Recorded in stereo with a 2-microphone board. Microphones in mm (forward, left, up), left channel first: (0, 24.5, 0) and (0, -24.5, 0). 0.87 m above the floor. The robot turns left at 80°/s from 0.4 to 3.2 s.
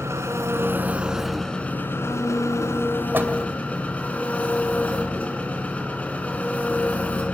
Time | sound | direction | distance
0.0 | an engine running | 105° right | 2.5 m
3.1 | a door slam | 40° right (ahead or behind) | 2.5 m